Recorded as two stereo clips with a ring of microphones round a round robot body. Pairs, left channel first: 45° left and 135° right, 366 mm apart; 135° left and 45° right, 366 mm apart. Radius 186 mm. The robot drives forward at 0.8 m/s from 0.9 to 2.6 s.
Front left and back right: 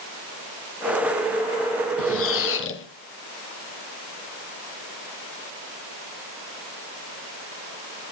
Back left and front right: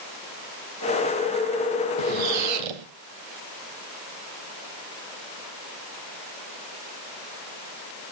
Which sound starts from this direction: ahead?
A squeak, at 2.0 s.